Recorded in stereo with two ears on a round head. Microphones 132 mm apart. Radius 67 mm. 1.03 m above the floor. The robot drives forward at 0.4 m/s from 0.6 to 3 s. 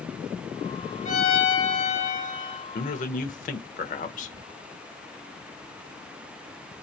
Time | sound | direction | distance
1.1 | a violin | 45° left (ahead or behind) | 1.4 m
2.8 | a man speaking | 60° left (ahead or behind) | 0.9 m